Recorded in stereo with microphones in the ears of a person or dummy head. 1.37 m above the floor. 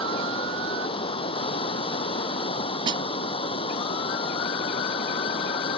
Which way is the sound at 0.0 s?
30° left (ahead or behind).